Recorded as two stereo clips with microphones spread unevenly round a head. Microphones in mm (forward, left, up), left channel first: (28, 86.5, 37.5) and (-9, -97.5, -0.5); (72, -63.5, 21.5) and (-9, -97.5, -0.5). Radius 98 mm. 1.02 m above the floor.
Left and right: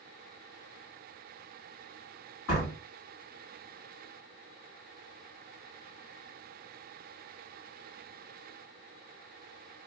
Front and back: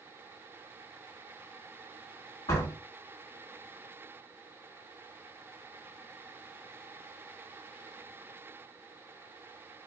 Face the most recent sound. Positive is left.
turn(degrees=60)